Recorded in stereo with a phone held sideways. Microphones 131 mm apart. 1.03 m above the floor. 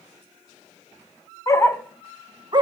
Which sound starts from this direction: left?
A dog barking, at 1.5 s.